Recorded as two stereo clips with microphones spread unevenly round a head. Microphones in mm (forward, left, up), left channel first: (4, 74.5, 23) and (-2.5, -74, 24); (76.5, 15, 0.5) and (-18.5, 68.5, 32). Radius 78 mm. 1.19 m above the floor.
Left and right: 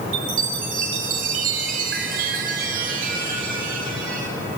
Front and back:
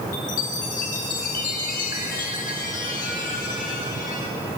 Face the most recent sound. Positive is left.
turn(degrees=-60)